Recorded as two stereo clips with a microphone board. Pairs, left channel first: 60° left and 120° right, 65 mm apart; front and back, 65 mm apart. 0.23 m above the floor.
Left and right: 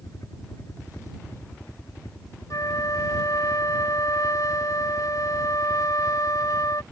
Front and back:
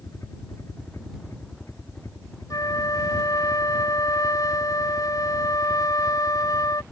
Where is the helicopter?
35° left; by 6.9 s 40° left.